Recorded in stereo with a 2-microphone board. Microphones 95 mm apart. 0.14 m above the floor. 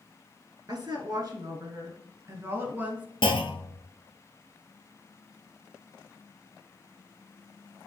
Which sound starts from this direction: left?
A clunk, at 3.2 s.